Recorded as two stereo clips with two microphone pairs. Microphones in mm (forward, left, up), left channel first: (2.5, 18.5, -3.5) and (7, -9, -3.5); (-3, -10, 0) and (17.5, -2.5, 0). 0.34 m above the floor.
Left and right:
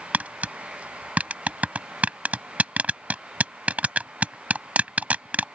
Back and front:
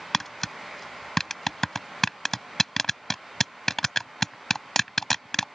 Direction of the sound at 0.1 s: 90° right.